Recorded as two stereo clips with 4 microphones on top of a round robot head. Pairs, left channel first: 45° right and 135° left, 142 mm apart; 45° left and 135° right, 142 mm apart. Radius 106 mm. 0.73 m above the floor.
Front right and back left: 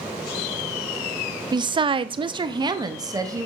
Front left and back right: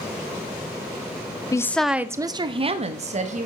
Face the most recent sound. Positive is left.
turn(degrees=-160)